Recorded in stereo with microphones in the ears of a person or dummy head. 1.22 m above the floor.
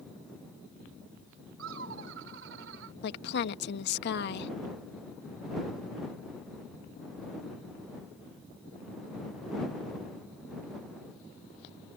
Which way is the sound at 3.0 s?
60° left (ahead or behind).